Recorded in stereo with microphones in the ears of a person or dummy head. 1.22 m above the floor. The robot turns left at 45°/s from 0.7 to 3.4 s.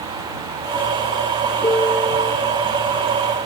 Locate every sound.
1.6 s a piano: 20° left; by 2.3 s 10° right